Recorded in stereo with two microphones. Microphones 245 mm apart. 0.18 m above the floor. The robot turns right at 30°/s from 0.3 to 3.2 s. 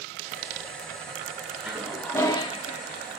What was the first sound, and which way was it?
A toilet flushing, 5° right.